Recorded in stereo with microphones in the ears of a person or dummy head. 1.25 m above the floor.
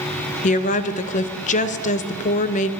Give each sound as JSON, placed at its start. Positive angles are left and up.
{"t": 0.4, "sound": "a woman speaking", "side_deg": 35, "distance_m": 0.6}